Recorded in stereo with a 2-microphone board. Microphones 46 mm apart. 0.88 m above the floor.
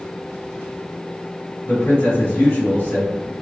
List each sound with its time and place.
1.6 s a man speaking: 55° left (ahead or behind), 1.6 m